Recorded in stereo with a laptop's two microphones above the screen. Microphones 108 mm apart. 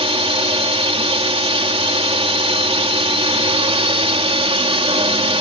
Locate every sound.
0.0 s a drone: 60° right (ahead or behind)